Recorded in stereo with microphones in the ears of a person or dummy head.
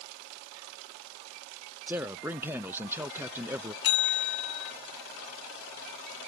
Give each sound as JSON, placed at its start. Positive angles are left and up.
{"t": 1.9, "sound": "a man speaking", "side_deg": -10}
{"t": 3.8, "sound": "a bell", "side_deg": 70}